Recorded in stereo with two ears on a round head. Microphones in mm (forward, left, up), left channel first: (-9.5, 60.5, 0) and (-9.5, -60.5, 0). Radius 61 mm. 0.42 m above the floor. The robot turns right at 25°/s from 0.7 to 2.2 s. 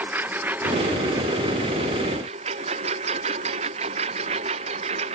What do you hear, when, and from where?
0.0 s a lawn mower: 165° right; by 5.2 s 130° right